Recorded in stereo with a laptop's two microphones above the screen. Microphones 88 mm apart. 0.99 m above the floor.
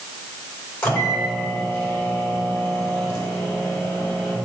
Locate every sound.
0.8 s a microwave: 25° left (ahead or behind), 2.5 m